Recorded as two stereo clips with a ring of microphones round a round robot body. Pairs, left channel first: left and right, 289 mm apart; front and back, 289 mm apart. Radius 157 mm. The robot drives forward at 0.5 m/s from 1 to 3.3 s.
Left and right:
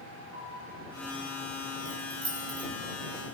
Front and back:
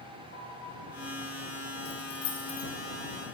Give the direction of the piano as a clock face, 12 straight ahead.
2 o'clock.